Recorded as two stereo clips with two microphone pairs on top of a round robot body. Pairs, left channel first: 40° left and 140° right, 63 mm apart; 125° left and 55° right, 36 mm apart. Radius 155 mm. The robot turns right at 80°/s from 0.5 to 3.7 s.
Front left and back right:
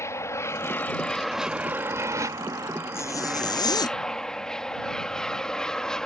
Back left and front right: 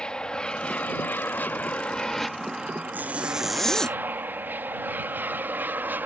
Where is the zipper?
10° right; by 4.0 s 50° left.